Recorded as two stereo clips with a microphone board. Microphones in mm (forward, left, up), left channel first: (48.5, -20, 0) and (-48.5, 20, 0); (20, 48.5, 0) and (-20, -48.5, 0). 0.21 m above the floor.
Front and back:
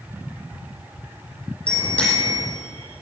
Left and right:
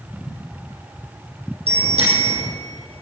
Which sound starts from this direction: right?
A bicycle bell, at 1.7 s.